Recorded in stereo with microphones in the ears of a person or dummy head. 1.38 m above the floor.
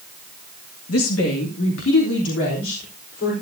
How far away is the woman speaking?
About 1.8 m.